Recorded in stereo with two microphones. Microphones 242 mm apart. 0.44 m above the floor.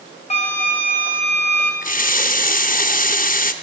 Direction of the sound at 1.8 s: 35° left (ahead or behind).